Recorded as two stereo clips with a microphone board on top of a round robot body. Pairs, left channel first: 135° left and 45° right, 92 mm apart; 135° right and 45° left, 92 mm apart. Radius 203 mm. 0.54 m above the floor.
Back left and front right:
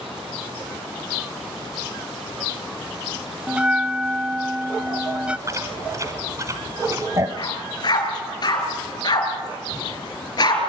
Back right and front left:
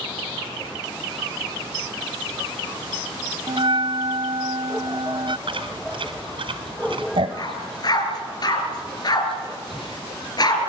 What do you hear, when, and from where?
3.5 s a bell: 30° left, 0.7 m
5.5 s chewing: 15° left, 1.2 m
7.4 s a dog barking: straight behind, 4 m